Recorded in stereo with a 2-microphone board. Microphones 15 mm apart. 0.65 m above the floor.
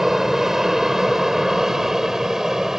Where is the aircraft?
25° right (ahead or behind); by 2.8 s 30° right (ahead or behind).